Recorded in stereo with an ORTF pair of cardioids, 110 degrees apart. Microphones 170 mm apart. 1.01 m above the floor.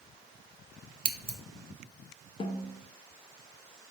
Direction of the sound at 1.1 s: 35° right.